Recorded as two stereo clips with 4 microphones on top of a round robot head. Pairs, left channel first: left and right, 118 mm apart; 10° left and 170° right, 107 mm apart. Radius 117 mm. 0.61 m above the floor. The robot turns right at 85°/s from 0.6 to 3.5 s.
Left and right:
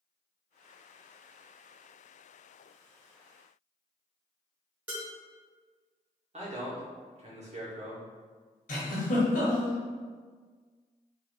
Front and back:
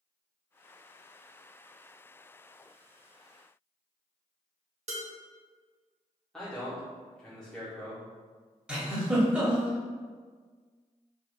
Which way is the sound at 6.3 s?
75° right.